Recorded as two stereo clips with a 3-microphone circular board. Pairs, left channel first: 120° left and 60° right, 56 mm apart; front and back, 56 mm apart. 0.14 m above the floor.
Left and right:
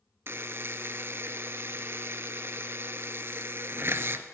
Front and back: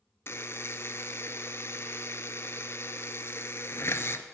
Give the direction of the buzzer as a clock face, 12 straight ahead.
1 o'clock.